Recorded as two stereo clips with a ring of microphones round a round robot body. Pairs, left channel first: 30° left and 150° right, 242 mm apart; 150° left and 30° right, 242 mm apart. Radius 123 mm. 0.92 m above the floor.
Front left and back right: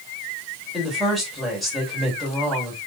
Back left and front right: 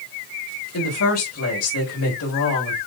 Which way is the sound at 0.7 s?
120° left.